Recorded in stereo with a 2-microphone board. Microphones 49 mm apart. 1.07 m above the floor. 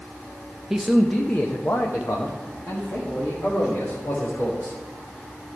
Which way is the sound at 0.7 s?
10° right (ahead or behind).